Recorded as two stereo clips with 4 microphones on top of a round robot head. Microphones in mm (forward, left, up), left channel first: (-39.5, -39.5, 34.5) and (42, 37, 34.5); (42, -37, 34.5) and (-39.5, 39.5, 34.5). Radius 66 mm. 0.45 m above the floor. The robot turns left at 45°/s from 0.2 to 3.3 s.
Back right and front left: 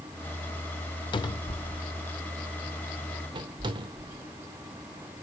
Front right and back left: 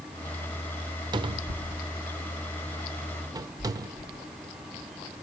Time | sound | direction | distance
1.1 | a cupboard door | straight behind | 0.8 m